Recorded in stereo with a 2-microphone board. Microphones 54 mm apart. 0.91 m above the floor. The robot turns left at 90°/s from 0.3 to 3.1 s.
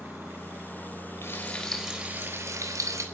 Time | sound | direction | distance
1.2 | frying | 50° left | 4 m